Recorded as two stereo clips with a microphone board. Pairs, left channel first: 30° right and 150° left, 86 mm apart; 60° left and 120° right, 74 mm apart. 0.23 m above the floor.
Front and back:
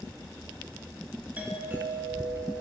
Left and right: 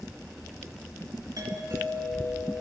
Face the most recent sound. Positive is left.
turn(degrees=-140)